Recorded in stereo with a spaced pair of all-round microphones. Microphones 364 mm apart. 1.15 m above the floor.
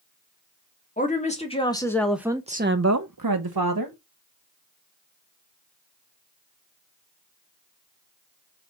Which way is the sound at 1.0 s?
20° left (ahead or behind).